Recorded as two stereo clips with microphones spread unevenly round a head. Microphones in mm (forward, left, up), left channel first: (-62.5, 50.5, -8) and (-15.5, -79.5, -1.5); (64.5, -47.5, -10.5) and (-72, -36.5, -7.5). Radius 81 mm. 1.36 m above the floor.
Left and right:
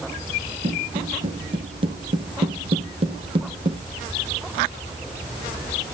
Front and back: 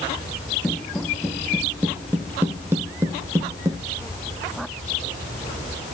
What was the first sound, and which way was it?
Footsteps, 85° right.